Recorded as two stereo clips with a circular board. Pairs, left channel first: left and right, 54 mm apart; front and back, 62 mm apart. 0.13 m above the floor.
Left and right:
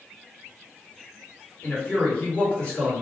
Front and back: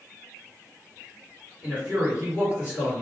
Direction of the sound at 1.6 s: 140° left.